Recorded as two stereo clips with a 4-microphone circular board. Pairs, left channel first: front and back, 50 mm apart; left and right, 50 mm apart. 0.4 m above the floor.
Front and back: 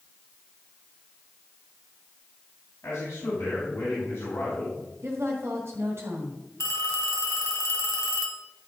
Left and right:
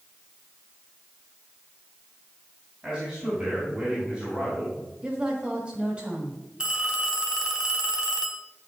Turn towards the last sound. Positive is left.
turn(degrees=-15)